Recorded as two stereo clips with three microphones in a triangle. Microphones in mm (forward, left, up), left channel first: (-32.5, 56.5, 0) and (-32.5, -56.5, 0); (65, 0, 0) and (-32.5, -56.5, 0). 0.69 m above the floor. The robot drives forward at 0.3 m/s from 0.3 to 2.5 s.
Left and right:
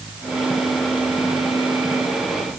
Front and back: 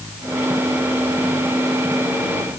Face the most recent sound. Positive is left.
No sound to turn to.